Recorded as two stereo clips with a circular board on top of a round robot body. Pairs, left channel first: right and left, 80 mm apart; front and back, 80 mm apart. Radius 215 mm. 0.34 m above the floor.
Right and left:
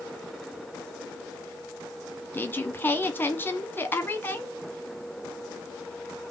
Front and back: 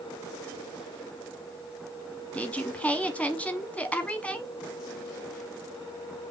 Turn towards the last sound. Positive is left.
turn(degrees=-55)